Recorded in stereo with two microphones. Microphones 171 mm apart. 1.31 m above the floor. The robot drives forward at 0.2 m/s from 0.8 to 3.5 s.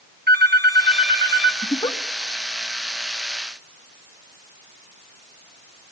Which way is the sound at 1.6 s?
25° left (ahead or behind).